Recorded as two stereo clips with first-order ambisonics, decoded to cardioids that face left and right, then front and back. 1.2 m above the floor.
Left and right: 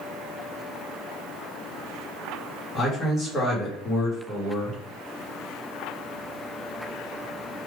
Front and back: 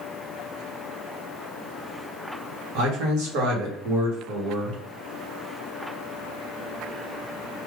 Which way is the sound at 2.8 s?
165° left.